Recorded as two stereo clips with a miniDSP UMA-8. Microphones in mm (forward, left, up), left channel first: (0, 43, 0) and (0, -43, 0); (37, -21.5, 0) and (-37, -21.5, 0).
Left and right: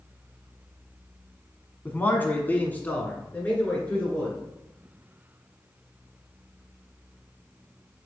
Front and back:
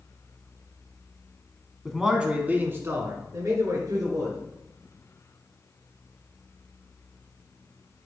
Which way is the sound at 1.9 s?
85° left.